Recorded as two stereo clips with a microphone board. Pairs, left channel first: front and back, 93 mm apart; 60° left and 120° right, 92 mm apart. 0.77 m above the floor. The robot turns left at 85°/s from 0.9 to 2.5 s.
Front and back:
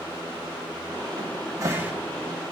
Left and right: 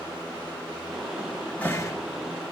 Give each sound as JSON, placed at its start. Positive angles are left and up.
{"t": 1.2, "sound": "a cupboard door", "azimuth_deg": 170, "distance_m": 1.3}